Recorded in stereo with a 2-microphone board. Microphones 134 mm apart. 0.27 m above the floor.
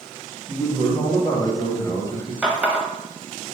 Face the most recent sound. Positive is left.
turn(degrees=-10)  # may be behind; listen again after turning